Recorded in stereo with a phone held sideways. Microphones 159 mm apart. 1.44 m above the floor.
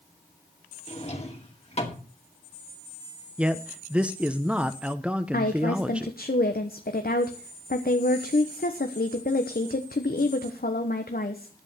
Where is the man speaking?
5° right (ahead or behind), 0.7 m.